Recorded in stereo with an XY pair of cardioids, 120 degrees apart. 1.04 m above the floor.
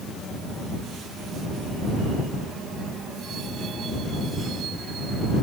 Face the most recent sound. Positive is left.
No sound to turn to.